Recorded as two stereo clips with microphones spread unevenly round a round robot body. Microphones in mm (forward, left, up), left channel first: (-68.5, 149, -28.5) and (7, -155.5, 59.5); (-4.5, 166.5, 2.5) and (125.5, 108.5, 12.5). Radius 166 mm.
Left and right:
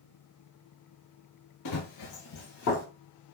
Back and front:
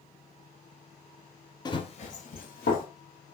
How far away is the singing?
I don't hear singing.